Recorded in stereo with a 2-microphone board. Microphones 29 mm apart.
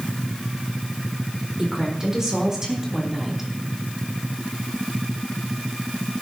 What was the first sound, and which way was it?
A woman speaking, 25° right (ahead or behind).